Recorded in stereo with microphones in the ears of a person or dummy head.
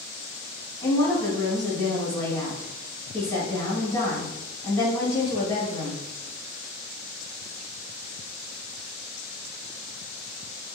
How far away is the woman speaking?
About 1.9 m.